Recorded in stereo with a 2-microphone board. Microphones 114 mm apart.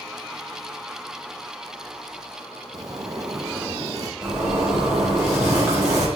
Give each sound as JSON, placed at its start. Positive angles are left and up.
{"t": 2.7, "sound": "a zipper", "side_deg": -30, "distance_m": 0.6}
{"t": 4.2, "sound": "a zipper", "side_deg": -25, "distance_m": 3.5}